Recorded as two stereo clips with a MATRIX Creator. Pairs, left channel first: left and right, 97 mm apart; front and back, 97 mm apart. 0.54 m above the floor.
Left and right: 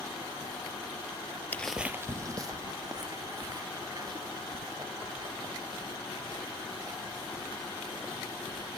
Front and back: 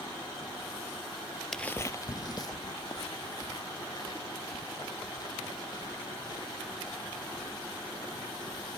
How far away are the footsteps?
About 0.5 m.